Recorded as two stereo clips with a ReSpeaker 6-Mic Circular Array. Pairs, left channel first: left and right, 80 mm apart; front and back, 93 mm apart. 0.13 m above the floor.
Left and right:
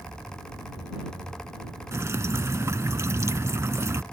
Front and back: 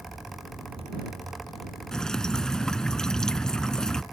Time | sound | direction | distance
1.9 | dripping | 80° right | ?